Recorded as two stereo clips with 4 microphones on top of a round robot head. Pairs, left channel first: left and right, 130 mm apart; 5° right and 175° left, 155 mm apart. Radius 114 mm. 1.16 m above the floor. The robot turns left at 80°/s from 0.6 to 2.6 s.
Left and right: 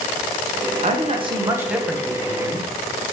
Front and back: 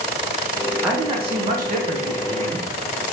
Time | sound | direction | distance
0.8 | a man speaking | 100° right | 1.1 m